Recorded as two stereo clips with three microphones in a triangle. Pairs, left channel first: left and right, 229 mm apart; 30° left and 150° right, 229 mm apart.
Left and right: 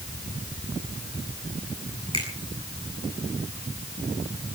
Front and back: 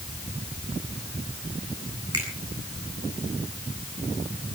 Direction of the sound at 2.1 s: 160° right.